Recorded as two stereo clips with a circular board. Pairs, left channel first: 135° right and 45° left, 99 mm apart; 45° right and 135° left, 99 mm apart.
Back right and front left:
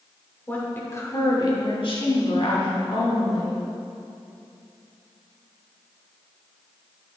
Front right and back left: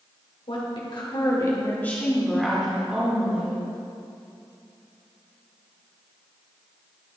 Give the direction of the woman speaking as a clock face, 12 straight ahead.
2 o'clock.